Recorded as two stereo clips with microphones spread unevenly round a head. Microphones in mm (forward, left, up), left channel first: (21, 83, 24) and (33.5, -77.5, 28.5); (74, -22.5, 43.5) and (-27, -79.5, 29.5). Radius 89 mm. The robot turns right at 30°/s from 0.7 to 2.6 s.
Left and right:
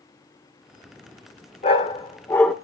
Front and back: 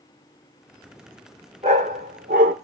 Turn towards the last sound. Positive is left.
turn(degrees=180)